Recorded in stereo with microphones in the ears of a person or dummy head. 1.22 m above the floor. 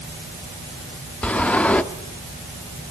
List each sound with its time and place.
1.2 s a sliding door: 15° left (ahead or behind), 1.0 m